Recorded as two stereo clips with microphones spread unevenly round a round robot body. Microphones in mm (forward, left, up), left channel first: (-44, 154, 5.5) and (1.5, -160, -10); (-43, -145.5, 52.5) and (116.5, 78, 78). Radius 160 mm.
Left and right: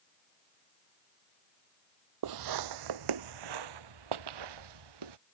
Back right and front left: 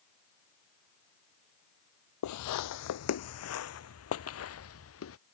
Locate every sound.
2.2 s footsteps: 105° right; by 5.2 s 85° right